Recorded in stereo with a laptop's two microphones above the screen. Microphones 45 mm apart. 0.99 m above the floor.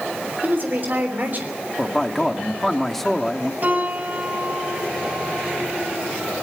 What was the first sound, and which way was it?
A woman speaking, 45° right (ahead or behind).